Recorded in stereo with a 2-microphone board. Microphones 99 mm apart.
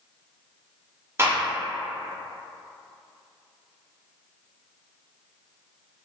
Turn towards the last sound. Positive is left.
turn(degrees=-25)  # may be behind; listen again after turning